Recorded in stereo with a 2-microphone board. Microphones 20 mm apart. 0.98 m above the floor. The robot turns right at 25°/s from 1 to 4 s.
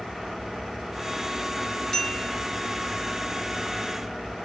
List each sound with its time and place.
1.9 s a bell: 25° left (ahead or behind), 2.5 m; by 2.3 s 15° left (ahead or behind), 2.5 m